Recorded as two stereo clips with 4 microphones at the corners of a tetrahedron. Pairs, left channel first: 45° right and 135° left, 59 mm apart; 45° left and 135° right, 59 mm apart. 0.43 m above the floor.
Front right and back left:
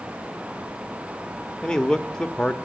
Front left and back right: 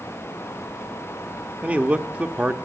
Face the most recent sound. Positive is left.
turn(degrees=-105)